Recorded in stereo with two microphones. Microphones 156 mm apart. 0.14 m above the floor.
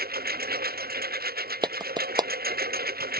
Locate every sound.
0.0 s a lawn mower: 80° right
1.6 s a clap: 25° right (ahead or behind)